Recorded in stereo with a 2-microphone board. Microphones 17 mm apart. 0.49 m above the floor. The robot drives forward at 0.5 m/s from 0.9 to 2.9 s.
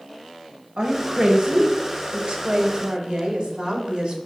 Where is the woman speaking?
45° right (ahead or behind), 1.9 m; by 4.2 s 60° right (ahead or behind), 1.6 m.